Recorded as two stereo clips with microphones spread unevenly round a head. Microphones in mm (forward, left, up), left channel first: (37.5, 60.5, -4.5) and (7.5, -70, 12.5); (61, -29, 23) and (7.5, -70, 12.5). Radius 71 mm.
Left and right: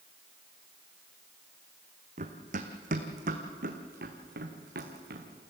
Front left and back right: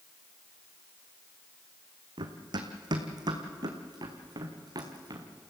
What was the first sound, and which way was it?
Running footsteps, 135° right.